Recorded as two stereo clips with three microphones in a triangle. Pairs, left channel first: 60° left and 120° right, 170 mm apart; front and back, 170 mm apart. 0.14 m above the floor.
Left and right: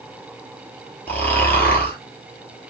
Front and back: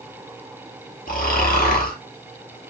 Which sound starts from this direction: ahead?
Snoring, at 1.1 s.